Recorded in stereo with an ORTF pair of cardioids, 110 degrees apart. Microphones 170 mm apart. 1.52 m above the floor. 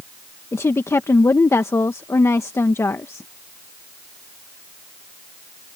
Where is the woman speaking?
15° left.